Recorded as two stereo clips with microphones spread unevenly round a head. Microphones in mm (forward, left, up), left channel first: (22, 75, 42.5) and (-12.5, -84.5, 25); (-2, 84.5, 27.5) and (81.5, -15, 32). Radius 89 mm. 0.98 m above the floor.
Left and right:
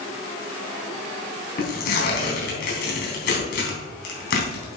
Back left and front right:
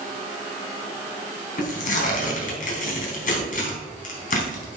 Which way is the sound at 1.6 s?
115° left.